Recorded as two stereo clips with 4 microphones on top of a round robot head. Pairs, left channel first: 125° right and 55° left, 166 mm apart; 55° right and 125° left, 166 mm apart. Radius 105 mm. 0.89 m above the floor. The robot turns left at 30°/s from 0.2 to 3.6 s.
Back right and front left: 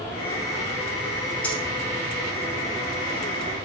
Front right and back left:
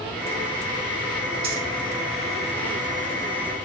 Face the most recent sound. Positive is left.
turn(degrees=90)